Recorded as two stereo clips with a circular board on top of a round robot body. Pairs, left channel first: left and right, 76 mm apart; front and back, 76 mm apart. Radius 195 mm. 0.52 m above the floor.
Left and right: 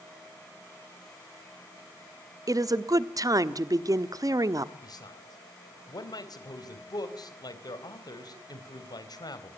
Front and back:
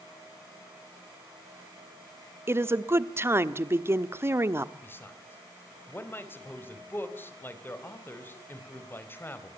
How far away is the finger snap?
No finger snap in this recording.